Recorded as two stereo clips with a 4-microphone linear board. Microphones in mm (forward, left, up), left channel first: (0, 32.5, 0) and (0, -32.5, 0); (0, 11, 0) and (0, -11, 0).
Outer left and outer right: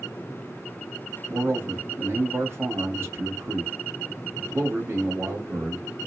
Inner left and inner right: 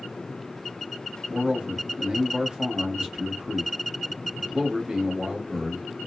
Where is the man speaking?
45° right (ahead or behind), 1.0 m.